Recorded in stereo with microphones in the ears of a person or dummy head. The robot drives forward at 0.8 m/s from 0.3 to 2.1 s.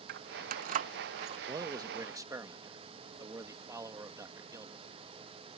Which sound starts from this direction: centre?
A man speaking, at 1.5 s.